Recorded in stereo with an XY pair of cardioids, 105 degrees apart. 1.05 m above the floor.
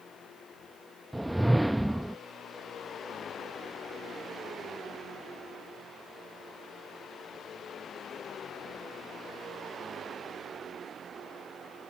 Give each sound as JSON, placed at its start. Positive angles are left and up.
{"t": 1.1, "sound": "a whoosh", "azimuth_deg": -5}